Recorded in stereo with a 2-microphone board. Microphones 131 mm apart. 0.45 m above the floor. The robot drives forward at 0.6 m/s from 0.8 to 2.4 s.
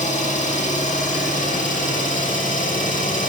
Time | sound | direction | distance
0.0 | an engine running | 70° left (ahead or behind) | 3.5 m